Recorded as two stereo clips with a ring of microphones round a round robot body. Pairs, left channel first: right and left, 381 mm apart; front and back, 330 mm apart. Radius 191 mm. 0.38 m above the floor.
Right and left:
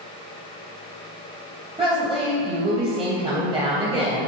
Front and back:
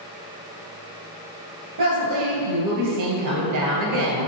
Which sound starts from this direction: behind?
A woman speaking, at 1.8 s.